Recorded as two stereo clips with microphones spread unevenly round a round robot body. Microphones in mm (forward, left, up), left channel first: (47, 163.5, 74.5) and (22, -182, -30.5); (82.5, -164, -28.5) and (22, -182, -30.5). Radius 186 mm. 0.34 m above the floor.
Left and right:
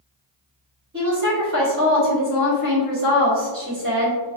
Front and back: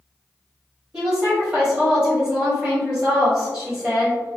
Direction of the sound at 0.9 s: 100° right.